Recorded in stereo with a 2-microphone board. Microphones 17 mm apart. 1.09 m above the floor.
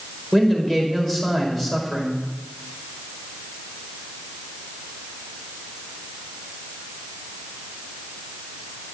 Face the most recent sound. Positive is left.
turn(degrees=20)  # may be behind; listen again after turning